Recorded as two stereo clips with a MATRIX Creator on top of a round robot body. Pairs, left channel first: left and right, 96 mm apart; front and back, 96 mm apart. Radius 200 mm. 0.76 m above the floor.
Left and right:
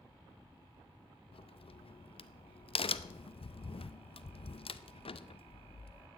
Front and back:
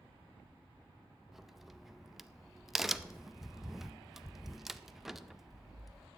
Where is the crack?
95° left, 0.7 m.